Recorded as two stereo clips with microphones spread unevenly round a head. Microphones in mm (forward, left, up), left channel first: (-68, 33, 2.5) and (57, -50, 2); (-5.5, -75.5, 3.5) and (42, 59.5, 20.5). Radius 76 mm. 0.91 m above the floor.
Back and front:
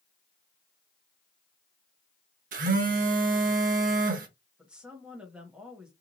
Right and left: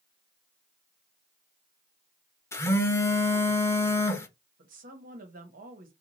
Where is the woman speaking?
50° left, 1.2 m.